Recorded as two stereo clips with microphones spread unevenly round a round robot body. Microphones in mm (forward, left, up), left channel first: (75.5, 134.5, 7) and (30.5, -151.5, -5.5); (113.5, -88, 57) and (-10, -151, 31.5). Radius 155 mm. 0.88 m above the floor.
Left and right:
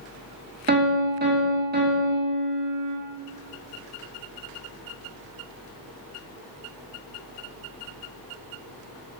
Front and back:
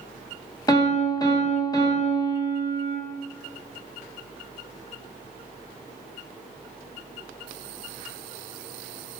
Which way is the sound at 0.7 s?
40° right.